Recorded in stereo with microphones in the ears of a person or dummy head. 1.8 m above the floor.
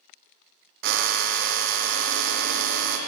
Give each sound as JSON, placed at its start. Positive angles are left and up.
{"t": 0.8, "sound": "a drill", "side_deg": -55, "distance_m": 0.5}